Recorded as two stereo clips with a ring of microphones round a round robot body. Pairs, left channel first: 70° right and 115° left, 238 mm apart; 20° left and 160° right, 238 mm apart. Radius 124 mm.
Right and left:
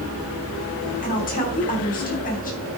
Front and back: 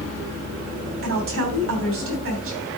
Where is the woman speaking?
125° right, 3.5 m.